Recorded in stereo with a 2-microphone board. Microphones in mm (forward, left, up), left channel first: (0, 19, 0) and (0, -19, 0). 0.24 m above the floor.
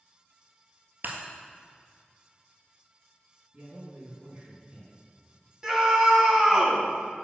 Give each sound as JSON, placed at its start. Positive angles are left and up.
{"t": 1.0, "sound": "breaking glass", "side_deg": -65, "distance_m": 1.4}
{"t": 3.5, "sound": "a man speaking", "side_deg": -40, "distance_m": 2.5}
{"t": 5.6, "sound": "a scream", "side_deg": -15, "distance_m": 2.0}